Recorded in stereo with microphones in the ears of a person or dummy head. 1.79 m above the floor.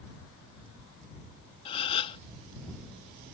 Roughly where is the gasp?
Left.